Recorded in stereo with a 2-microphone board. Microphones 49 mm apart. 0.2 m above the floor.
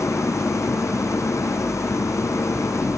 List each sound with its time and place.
0.0 s an engine running: 85° left